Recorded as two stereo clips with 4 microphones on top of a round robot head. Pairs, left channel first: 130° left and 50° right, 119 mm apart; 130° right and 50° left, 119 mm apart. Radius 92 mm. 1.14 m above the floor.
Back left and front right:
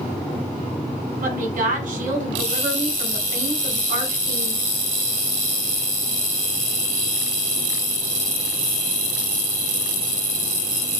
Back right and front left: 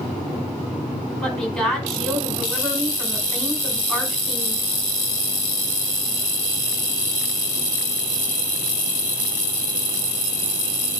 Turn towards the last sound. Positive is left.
turn(degrees=-45)